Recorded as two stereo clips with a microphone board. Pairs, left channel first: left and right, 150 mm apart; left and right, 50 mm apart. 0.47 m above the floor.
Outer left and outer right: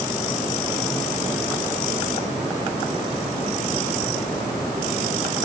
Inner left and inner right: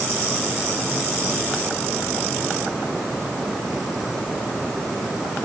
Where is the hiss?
No hiss in this recording.